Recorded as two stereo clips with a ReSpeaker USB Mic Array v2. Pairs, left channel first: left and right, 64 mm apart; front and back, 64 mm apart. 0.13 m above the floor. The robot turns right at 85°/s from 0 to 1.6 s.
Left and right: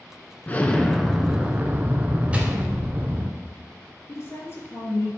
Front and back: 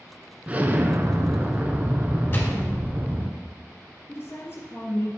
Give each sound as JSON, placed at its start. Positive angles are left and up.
{"t": 0.5, "sound": "an explosion", "azimuth_deg": 130, "distance_m": 0.8}
{"t": 2.3, "sound": "a gunshot", "azimuth_deg": -40, "distance_m": 1.9}
{"t": 4.1, "sound": "a woman speaking", "azimuth_deg": 50, "distance_m": 3.0}